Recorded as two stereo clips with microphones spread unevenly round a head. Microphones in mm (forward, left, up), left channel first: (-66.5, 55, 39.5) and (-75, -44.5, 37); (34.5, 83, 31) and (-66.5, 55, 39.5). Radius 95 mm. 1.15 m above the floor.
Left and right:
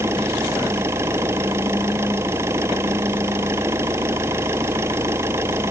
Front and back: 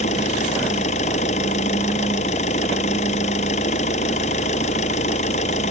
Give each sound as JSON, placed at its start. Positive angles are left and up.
{"t": 0.0, "sound": "an engine running", "azimuth_deg": -20}